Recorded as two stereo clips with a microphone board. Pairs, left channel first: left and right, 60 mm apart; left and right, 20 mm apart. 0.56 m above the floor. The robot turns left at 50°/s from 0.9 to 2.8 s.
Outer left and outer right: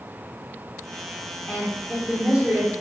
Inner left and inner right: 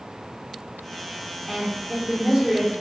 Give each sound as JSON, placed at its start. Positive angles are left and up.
{"t": 1.5, "sound": "a woman speaking", "azimuth_deg": 15, "distance_m": 1.2}